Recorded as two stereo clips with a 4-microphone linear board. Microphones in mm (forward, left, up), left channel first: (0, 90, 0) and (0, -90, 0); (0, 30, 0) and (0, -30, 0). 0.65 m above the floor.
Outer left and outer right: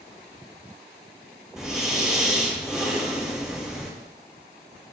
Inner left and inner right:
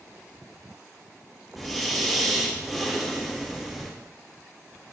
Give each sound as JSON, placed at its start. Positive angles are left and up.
{"t": 1.6, "sound": "breathing", "side_deg": -5, "distance_m": 5.5}